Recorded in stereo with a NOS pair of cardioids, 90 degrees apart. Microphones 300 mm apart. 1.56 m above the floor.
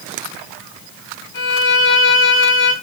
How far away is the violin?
About 1.8 m.